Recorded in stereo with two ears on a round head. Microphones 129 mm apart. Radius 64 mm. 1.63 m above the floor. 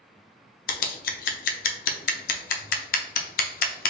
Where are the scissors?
65° left (ahead or behind), 0.6 m.